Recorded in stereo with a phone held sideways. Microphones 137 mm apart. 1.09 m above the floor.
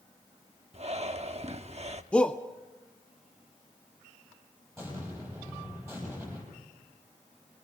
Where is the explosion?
20° right (ahead or behind), 7.5 m.